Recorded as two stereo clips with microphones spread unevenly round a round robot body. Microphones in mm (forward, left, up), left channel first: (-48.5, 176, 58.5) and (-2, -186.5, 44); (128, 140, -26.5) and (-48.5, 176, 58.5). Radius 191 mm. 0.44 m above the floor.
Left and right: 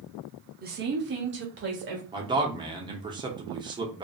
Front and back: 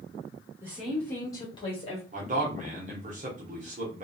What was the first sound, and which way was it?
A woman speaking, 70° right.